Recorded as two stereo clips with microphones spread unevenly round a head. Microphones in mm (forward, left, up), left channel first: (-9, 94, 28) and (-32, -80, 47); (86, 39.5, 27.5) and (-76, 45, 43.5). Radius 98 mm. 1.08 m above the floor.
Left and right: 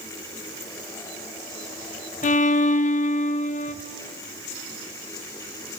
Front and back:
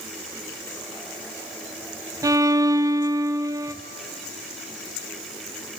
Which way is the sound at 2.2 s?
105° left.